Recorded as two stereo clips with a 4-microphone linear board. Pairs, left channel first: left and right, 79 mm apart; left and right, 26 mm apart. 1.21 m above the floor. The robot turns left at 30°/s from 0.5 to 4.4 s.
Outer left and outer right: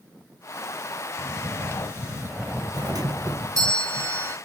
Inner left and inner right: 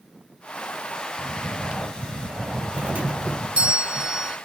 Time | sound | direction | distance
1.2 | snoring | 130° right | ?
2.7 | a doorbell | 95° right | ?